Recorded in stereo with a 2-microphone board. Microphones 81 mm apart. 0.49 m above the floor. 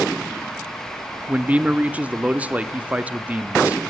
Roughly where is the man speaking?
Centre.